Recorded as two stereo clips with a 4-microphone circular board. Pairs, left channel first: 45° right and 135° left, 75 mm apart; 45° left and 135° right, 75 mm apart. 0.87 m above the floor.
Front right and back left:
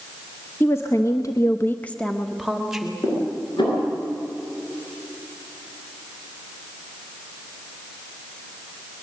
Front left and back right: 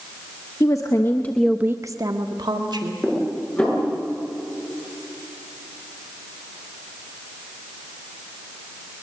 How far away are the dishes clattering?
About 8.5 m.